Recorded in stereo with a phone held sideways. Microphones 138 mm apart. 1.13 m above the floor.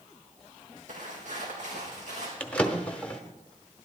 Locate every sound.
0.9 s footsteps: 65° right (ahead or behind), 3 m; by 2.3 s 60° right (ahead or behind), 3.5 m
2.4 s a drawer: 10° left (ahead or behind), 1.0 m